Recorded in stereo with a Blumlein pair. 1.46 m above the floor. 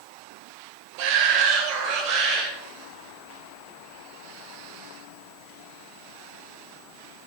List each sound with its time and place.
1.0 s a shout: 45° right, 1.4 m; by 2.5 s 35° right, 2.5 m